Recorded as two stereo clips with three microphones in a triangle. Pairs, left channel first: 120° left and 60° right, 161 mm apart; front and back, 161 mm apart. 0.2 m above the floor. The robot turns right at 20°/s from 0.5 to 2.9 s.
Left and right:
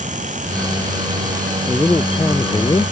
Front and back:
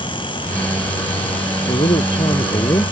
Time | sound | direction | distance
1.7 | a man speaking | 40° left | ?